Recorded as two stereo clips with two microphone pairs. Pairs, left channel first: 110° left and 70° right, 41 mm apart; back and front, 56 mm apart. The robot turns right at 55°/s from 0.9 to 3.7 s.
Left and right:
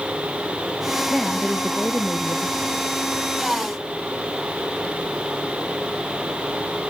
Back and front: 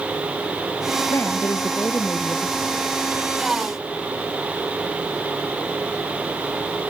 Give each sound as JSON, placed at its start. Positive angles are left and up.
{"t": 1.1, "sound": "a woman speaking", "azimuth_deg": -165}